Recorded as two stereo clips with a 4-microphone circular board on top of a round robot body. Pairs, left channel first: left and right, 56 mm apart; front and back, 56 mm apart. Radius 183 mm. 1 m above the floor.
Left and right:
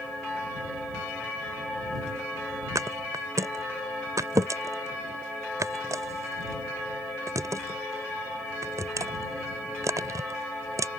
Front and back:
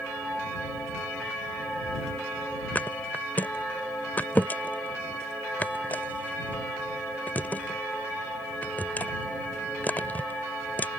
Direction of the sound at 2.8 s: 65° right.